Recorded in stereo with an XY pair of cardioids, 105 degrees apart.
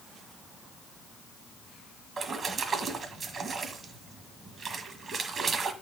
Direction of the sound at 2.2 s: 45° right.